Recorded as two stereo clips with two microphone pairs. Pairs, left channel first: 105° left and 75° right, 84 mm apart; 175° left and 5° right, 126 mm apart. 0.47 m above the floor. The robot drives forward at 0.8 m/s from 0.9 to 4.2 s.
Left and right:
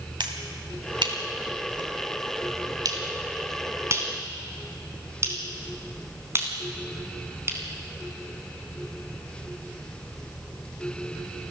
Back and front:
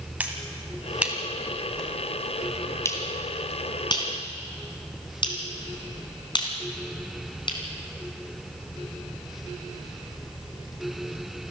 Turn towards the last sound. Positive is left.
turn(degrees=-135)